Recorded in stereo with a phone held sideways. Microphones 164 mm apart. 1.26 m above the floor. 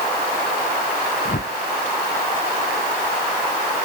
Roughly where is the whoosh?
Left.